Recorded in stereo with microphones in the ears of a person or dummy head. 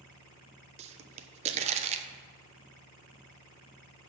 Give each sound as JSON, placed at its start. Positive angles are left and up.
{"t": 0.8, "sound": "a pop", "side_deg": -35, "distance_m": 0.9}